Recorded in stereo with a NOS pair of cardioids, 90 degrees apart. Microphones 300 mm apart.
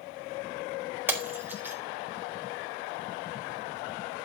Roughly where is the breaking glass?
Ahead.